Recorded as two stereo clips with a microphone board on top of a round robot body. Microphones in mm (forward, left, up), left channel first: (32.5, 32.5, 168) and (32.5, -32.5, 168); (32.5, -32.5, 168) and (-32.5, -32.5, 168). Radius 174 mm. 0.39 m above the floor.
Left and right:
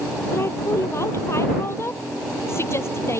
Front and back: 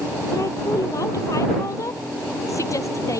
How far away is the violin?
No violin in this recording.